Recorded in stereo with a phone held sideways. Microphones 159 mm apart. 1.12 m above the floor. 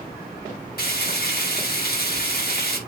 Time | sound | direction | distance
0.8 | frying | 85° left | 5.5 m